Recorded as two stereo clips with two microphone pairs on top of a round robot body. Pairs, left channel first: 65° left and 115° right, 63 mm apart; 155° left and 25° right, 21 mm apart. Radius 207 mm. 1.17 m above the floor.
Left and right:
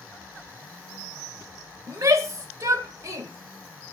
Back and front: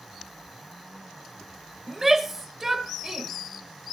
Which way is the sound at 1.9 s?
90° right.